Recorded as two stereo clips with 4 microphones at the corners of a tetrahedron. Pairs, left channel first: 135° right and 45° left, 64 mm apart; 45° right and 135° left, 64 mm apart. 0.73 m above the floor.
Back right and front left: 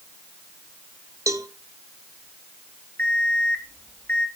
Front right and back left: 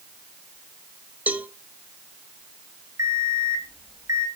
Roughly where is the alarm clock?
Behind.